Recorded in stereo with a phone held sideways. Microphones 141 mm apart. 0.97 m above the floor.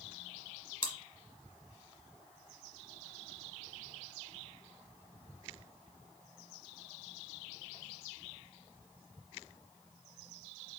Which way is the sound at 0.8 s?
45° left (ahead or behind).